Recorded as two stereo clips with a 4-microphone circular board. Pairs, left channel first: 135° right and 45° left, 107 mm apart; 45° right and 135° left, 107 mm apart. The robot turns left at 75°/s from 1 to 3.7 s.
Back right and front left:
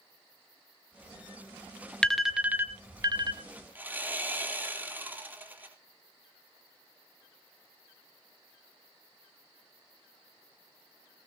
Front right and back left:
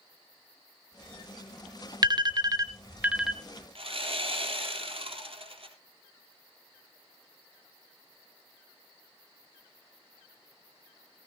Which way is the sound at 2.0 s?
145° left.